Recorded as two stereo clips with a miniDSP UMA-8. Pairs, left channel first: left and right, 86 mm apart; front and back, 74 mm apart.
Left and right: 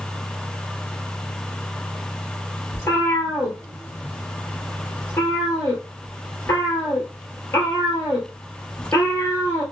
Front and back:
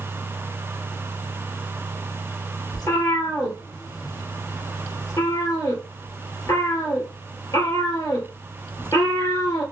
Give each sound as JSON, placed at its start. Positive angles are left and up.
{"t": 2.7, "sound": "a cat meowing", "azimuth_deg": 30, "distance_m": 2.0}